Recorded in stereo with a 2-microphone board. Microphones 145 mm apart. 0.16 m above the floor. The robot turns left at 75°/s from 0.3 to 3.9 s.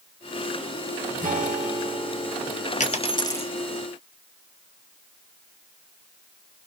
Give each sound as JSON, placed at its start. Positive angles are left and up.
{"t": 1.2, "sound": "a guitar", "azimuth_deg": -95, "distance_m": 1.4}
{"t": 2.8, "sound": "a dropped coin", "azimuth_deg": 60, "distance_m": 0.8}